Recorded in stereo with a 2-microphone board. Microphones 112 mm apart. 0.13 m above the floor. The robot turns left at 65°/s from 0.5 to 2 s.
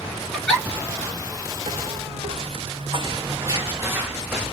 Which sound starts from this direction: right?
Footsteps, at 1.7 s.